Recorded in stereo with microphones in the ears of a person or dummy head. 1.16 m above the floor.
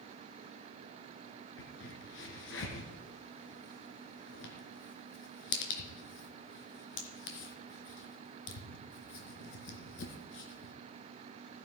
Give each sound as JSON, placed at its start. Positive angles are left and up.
{"t": 1.6, "sound": "a crack", "side_deg": 75, "distance_m": 3.0}